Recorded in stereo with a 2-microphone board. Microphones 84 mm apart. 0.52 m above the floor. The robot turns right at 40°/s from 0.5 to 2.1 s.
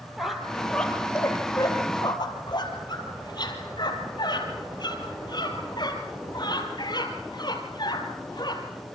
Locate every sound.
0.2 s a squeak: centre (ahead or behind), 3.5 m; by 8.6 s 65° left (ahead or behind), 3.5 m